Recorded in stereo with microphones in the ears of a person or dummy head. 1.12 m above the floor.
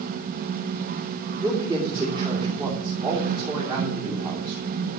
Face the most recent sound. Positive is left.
turn(degrees=-25)  # may be behind; listen again after turning